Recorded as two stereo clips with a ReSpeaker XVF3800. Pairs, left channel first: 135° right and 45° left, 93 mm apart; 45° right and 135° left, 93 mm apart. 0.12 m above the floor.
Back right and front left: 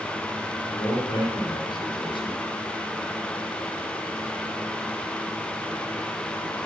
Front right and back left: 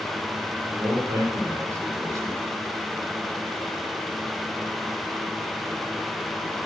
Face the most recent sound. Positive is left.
turn(degrees=-165)